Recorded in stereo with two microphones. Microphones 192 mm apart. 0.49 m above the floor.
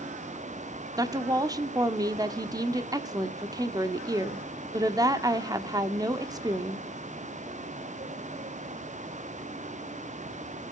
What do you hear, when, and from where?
1.0 s a woman speaking: 20° right (ahead or behind), 1.0 m